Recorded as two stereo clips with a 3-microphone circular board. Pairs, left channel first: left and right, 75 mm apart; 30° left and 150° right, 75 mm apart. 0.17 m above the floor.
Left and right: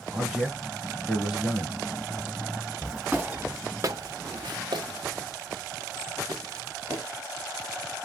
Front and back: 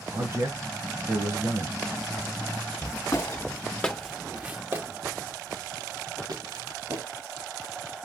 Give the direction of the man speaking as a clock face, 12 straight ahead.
6 o'clock.